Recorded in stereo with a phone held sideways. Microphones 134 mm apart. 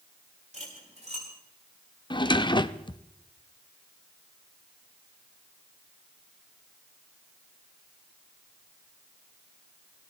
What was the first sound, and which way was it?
Cutlery clinking, 60° right (ahead or behind).